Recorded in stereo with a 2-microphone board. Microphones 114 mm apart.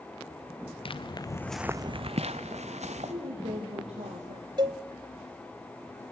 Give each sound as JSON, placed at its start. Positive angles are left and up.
{"t": 0.8, "sound": "footsteps", "side_deg": 55, "distance_m": 1.0}
{"t": 2.9, "sound": "a woman speaking", "side_deg": -65, "distance_m": 6.0}
{"t": 4.6, "sound": "a cowbell", "side_deg": -45, "distance_m": 0.6}